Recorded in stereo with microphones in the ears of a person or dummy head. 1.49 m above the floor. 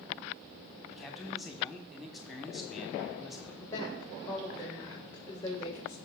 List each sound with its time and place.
0.9 s a man speaking: centre (ahead or behind), 1.2 m
3.6 s a woman speaking: 15° left (ahead or behind), 1.8 m